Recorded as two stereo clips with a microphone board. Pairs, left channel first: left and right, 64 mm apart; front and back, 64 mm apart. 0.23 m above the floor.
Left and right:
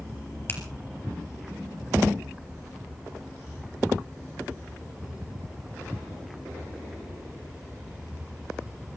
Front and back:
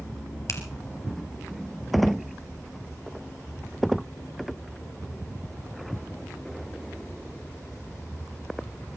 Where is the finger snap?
35° left, 3.5 m.